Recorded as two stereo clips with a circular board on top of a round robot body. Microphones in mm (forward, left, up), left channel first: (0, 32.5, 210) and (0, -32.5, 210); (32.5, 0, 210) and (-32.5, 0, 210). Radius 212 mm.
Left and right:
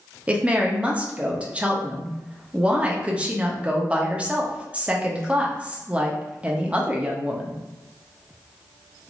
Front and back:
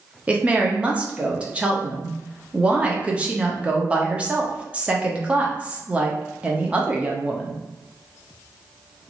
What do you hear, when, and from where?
0.3 s a woman speaking: 135° right, 1.0 m